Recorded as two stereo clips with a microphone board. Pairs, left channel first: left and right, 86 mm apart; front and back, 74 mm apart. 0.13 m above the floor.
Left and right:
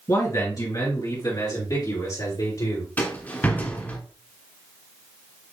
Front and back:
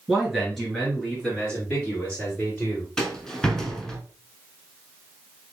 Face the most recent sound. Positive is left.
turn(degrees=65)